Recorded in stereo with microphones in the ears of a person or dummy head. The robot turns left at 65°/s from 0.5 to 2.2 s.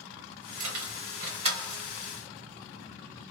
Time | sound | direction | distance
0.6 | keys jangling | 90° right | 1.6 m